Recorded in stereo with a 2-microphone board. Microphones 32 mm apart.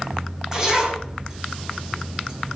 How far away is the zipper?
About 6 m.